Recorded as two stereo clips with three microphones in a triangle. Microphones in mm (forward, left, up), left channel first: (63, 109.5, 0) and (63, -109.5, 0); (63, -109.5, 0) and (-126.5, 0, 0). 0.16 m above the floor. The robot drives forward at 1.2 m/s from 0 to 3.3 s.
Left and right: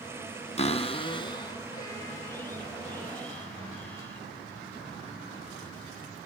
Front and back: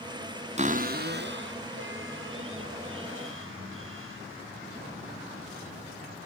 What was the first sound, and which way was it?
A cupboard door, 125° left.